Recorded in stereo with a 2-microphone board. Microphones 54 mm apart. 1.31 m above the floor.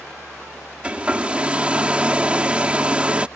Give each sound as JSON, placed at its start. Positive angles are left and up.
{"t": 0.8, "sound": "a hair dryer", "side_deg": -20}